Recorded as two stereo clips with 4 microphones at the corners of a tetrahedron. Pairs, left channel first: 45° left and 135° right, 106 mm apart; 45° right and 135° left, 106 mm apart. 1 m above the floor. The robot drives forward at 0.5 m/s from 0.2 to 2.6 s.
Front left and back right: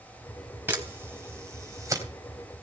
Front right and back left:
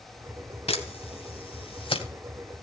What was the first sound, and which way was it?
A camera shutter, 65° right.